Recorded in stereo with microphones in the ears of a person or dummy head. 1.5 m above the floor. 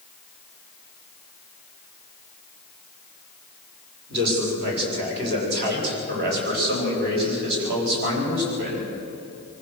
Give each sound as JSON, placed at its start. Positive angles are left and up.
{"t": 4.1, "sound": "a man speaking", "side_deg": -60, "distance_m": 6.0}